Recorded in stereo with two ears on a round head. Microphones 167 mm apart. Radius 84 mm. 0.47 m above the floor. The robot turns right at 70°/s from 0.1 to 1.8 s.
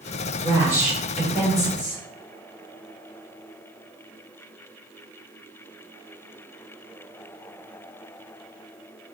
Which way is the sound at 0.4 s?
20° right (ahead or behind).